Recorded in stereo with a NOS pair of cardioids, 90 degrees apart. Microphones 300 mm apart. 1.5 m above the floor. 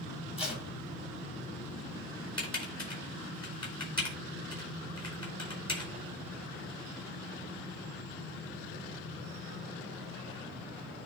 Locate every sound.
0.4 s tape being pulled: 20° left, 3.5 m
2.4 s typing on a keyboard: 15° left, 4 m